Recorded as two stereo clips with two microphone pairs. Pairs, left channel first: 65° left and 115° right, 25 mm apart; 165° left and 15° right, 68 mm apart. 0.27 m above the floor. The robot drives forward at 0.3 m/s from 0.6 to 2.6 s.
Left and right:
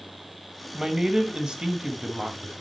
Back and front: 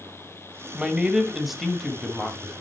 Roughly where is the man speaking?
Right.